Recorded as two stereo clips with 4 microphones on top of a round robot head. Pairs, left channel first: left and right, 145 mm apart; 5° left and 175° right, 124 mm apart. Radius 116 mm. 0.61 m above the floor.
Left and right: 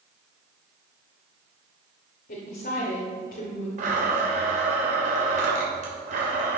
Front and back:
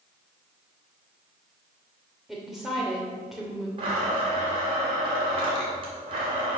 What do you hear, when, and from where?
2.3 s a woman speaking: 100° left, 2 m
3.8 s a blender: 125° right, 3 m